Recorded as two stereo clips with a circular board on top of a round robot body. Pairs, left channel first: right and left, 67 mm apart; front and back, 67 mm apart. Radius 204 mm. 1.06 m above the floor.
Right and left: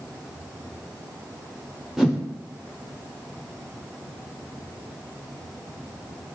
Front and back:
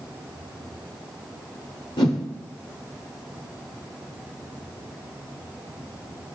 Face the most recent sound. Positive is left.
turn(degrees=5)